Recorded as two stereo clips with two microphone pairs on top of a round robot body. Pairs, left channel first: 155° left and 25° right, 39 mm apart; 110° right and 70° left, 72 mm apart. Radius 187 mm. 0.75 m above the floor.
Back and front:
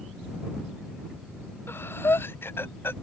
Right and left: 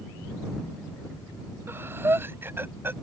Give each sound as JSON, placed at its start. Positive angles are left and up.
{"t": 1.7, "sound": "breathing", "azimuth_deg": 130}